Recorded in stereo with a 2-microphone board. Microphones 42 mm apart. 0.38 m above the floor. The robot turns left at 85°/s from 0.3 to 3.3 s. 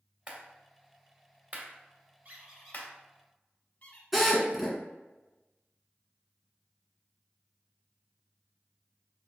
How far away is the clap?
About 1.2 m.